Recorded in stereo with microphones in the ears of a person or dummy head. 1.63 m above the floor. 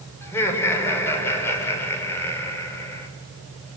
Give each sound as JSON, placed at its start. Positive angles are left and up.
{"t": 0.2, "sound": "laughter", "side_deg": 15, "distance_m": 7.0}